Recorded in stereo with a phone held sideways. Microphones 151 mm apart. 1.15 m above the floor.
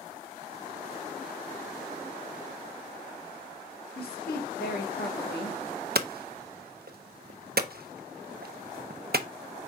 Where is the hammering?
75° right (ahead or behind), 0.6 m.